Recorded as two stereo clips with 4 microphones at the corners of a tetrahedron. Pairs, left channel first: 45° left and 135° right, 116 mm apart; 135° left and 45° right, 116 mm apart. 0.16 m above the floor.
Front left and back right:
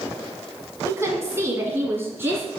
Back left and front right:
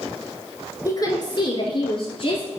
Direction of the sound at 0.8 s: 170° left.